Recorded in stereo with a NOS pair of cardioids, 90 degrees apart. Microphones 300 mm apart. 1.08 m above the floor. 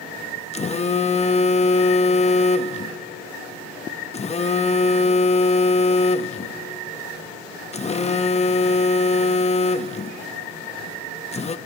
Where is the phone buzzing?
25° left, 0.7 m.